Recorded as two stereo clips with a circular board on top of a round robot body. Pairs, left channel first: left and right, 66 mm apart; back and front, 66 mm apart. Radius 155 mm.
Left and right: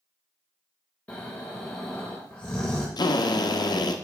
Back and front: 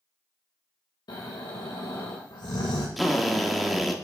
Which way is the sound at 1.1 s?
160° left.